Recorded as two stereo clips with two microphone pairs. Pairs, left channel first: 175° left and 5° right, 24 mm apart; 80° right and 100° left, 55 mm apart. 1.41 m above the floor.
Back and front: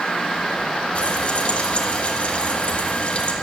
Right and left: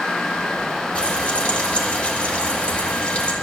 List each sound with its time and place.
0.9 s frying: 145° right, 2.0 m